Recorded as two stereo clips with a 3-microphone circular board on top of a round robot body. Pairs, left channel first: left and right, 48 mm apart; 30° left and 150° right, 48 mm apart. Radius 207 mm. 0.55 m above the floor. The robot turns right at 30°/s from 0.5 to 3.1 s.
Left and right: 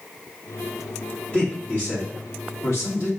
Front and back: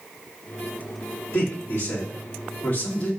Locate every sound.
1.3 s a man speaking: 35° left, 2.5 m; by 3.1 s 90° left, 2.5 m